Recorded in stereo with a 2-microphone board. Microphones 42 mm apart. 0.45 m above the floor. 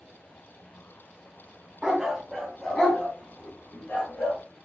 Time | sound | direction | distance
1.8 | a dog barking | 15° right (ahead or behind) | 1.2 m